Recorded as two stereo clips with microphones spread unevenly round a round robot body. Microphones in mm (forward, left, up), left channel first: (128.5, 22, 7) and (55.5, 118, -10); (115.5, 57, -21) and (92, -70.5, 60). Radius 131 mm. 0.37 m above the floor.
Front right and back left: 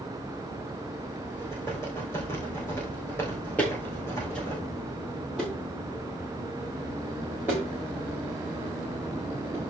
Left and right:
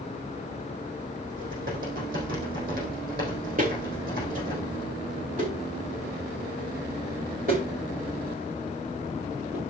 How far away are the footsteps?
About 2 m.